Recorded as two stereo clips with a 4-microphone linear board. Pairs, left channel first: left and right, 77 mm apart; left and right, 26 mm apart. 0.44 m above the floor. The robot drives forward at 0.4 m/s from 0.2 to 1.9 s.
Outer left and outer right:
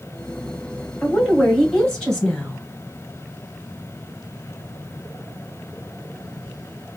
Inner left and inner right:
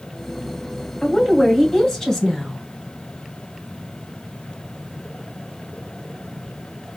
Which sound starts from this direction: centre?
A woman speaking, at 1.0 s.